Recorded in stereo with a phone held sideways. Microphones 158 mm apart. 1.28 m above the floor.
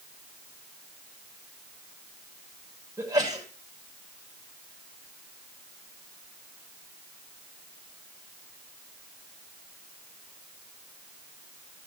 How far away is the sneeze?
About 6.5 m.